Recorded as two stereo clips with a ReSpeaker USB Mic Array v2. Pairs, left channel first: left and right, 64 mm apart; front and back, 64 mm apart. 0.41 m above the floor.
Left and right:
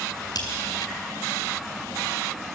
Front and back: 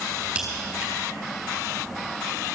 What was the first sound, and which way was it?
A crack, 105° left.